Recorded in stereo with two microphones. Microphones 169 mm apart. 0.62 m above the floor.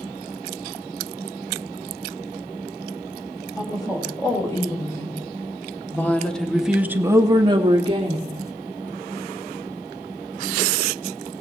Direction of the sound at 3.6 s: 25° left (ahead or behind).